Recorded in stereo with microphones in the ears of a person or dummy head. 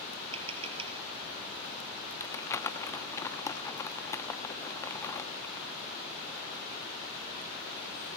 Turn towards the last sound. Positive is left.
turn(degrees=15)  # may be behind; listen again after turning